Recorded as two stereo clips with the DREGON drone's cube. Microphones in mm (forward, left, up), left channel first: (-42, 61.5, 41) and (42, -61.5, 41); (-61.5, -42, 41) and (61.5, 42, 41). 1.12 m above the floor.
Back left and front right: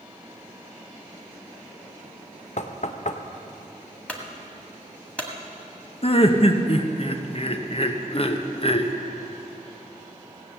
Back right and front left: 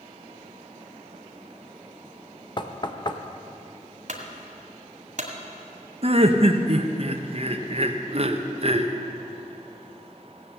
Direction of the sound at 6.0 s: 75° left.